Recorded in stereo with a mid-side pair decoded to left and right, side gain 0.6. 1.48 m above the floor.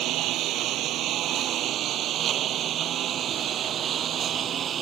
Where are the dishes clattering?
No dishes clattering in this recording.